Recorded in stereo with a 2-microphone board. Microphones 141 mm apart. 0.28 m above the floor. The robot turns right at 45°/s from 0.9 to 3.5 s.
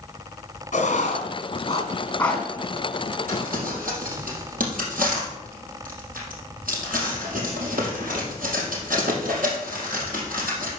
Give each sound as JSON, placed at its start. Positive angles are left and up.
{"t": 0.7, "sound": "writing", "side_deg": 60, "distance_m": 3.0}
{"t": 3.3, "sound": "crumpling", "side_deg": -85, "distance_m": 4.0}